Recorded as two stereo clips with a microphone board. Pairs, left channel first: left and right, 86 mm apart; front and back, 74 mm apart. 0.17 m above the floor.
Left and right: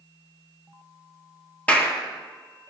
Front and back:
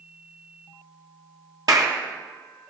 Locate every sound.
1.7 s a clap: 160° left, 3 m